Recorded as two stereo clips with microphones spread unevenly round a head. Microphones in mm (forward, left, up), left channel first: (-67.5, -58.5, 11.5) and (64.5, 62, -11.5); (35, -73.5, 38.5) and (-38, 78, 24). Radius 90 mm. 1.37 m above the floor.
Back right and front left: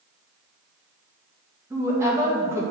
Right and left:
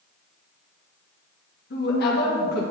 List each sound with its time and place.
1.7 s a woman speaking: 35° right, 1.8 m